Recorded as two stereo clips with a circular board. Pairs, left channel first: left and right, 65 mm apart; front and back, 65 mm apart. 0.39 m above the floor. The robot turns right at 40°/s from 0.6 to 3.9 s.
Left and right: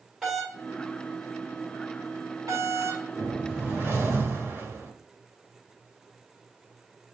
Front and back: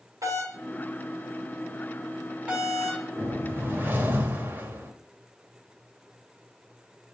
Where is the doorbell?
Straight behind, 3 m; by 3.0 s 85° right, 3 m.